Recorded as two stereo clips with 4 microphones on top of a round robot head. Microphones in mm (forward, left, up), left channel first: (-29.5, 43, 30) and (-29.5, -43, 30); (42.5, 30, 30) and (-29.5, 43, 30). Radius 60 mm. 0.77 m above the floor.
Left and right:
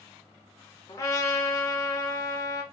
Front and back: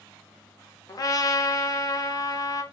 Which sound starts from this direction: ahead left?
A trumpet, at 0.9 s.